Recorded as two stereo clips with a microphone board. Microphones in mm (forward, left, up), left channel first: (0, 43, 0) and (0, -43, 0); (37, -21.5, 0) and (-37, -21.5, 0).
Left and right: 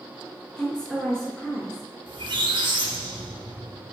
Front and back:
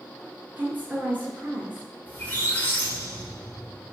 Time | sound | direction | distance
0.6 | a woman speaking | 160° left | 1.2 m
2.1 | a squeak | 70° right | 1.1 m